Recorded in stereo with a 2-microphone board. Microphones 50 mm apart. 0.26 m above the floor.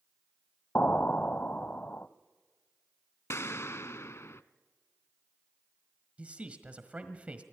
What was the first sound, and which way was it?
An explosion, 40° left (ahead or behind).